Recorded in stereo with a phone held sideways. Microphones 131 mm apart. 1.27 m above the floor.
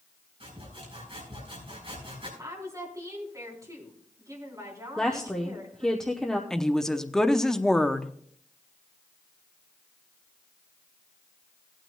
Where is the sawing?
45° right (ahead or behind), 5 m.